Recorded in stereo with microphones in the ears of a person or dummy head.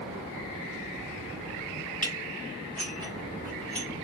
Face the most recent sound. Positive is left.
turn(degrees=5)  # may be behind; listen again after turning